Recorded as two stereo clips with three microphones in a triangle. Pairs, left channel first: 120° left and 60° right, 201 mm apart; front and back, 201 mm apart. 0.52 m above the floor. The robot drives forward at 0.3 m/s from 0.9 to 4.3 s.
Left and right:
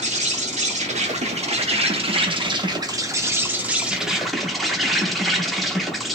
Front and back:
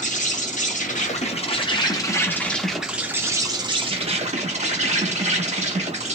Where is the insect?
25° right, 0.9 m; by 6.2 s 150° right, 0.8 m.